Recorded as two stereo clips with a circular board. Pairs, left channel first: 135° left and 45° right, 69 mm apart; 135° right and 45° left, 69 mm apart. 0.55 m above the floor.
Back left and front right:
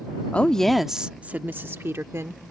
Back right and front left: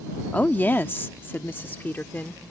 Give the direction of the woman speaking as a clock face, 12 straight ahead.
6 o'clock.